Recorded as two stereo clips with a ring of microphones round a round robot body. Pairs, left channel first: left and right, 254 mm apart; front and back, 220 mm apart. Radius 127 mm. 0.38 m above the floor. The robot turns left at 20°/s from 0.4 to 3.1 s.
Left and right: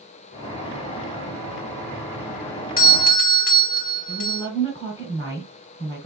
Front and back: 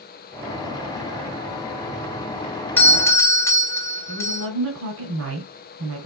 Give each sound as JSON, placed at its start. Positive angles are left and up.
{"t": 2.8, "sound": "a doorbell", "azimuth_deg": 75, "distance_m": 1.7}
{"t": 4.1, "sound": "a woman speaking", "azimuth_deg": 160, "distance_m": 3.5}